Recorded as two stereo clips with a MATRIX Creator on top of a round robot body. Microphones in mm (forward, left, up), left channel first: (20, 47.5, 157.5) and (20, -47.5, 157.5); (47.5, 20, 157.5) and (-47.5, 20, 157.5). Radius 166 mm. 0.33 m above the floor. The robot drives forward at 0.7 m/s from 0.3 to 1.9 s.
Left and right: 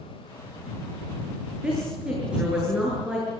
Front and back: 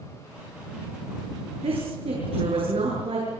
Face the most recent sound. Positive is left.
turn(degrees=-170)